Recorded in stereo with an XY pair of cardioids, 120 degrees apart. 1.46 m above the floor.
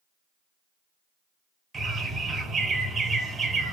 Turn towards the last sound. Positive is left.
turn(degrees=-35)